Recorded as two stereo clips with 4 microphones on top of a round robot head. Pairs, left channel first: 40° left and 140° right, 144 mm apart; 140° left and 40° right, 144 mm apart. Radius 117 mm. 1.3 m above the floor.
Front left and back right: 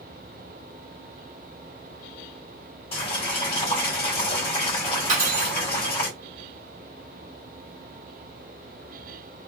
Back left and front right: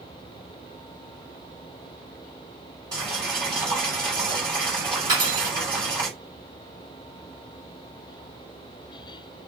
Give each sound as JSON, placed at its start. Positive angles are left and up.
{"t": 2.9, "sound": "boiling", "azimuth_deg": 10, "distance_m": 1.3}
{"t": 5.1, "sound": "cutlery clinking", "azimuth_deg": -100, "distance_m": 1.5}